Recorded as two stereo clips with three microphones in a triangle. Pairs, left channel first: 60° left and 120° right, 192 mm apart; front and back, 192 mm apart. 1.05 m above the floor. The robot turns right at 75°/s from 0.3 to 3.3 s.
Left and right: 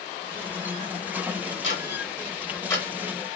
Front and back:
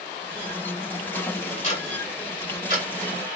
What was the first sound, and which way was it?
Ticking, 50° left.